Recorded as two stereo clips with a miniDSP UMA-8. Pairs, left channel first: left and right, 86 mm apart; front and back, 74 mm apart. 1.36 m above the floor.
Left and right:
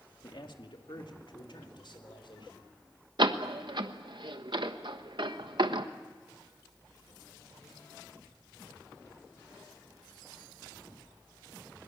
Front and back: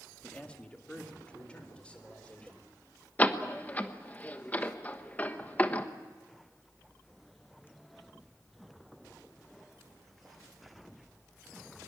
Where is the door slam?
70° right, 1.2 m.